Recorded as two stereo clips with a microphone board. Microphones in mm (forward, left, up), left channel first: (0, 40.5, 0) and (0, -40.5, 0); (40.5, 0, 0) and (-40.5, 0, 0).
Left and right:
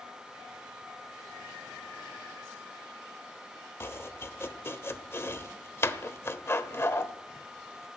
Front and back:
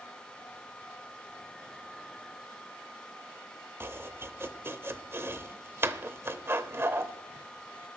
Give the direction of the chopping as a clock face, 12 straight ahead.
8 o'clock.